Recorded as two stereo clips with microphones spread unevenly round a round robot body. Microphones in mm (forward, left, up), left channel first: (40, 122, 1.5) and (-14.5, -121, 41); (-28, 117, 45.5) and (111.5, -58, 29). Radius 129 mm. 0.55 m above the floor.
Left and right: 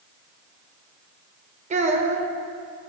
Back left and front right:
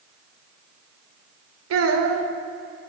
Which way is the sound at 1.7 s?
35° right.